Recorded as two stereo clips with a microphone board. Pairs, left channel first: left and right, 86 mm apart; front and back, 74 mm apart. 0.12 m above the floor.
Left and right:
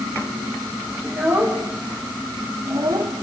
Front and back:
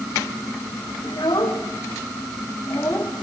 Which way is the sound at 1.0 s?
20° right.